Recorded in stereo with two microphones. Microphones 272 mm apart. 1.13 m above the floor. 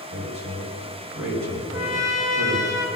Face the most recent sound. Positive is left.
turn(degrees=-10)  # may be behind; listen again after turning